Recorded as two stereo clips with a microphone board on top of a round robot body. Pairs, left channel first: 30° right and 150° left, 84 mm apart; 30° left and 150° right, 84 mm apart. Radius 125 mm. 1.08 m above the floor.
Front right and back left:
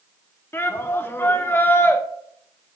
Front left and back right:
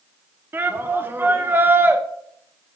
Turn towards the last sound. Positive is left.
turn(degrees=-90)